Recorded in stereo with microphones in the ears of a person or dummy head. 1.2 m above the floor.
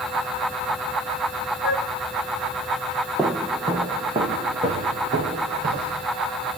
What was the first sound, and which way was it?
A flute, 55° left (ahead or behind).